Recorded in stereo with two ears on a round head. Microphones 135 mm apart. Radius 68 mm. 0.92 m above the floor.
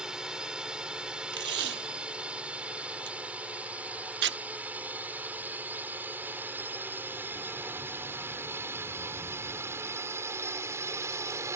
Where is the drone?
5° right (ahead or behind); by 11.6 s 20° right (ahead or behind).